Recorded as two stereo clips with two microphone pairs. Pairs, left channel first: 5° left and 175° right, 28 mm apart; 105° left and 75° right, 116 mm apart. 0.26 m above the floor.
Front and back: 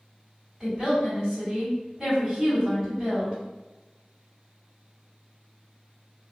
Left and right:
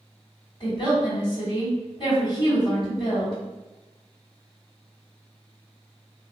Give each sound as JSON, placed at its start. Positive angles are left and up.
{"t": 0.6, "sound": "a woman speaking", "azimuth_deg": 125, "distance_m": 1.9}